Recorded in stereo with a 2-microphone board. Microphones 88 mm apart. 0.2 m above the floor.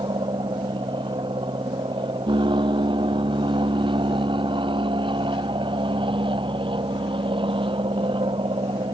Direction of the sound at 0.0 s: 60° right (ahead or behind).